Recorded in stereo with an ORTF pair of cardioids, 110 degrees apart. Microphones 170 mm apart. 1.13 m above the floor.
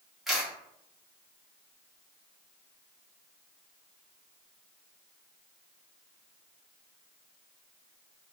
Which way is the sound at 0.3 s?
Straight ahead.